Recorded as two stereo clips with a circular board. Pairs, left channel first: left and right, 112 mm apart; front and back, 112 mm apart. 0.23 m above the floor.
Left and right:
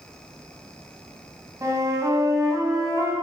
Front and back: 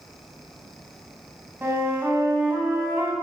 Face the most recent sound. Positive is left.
turn(degrees=-125)